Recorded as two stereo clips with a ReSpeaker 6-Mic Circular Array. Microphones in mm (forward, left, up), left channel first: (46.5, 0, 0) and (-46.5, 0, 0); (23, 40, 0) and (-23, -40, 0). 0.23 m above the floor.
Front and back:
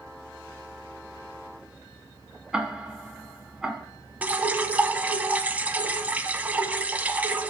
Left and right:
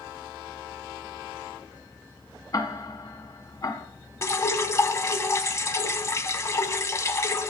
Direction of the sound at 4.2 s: 110° left.